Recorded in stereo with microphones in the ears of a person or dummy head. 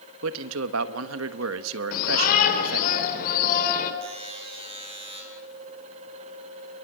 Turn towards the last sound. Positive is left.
turn(degrees=-30)  # may be behind; listen again after turning